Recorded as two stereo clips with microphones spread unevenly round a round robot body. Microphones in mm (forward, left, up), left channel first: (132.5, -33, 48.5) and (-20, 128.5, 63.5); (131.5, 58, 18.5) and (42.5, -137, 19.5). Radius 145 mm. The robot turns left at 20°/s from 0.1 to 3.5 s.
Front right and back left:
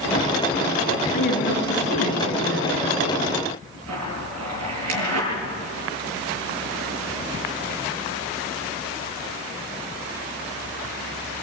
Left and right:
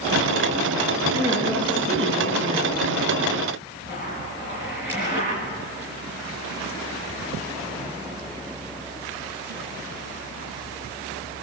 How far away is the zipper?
About 7.5 m.